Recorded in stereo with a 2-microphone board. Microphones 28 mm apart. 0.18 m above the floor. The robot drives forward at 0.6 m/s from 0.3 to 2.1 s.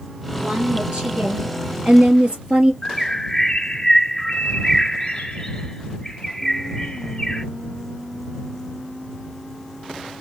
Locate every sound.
0.3 s a woman speaking: 60° right (ahead or behind), 2.5 m; by 2.7 s 45° right (ahead or behind), 3.5 m
2.8 s a bird: 35° left (ahead or behind), 1.7 m